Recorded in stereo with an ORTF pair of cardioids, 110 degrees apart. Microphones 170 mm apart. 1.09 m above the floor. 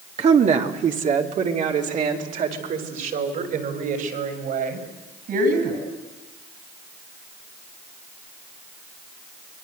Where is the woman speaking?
40° right, 2 m; by 5.8 s 60° right, 8.5 m.